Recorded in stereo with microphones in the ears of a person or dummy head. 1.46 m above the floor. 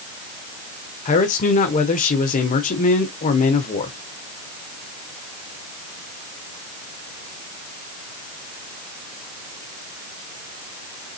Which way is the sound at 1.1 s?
45° left (ahead or behind).